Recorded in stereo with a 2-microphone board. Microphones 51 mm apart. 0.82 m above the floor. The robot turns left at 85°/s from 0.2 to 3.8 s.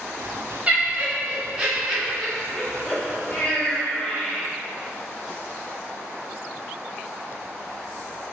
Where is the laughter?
25° right (ahead or behind), 0.5 m; by 4.5 s 10° left (ahead or behind), 0.5 m.